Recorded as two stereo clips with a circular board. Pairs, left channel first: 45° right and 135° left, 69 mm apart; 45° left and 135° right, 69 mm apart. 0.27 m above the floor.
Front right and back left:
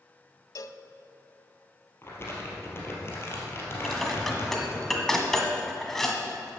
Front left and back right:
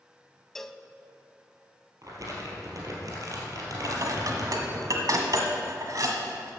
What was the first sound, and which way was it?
A cowbell, 40° right.